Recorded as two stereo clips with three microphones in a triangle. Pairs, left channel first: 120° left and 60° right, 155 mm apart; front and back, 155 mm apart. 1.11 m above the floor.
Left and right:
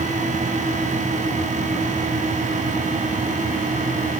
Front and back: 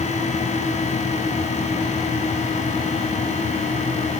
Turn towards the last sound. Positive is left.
No sound to turn to.